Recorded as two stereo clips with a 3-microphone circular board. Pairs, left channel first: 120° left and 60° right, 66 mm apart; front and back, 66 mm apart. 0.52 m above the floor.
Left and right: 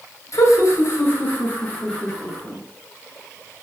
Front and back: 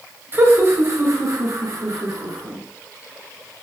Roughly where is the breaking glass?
No breaking glass in this recording.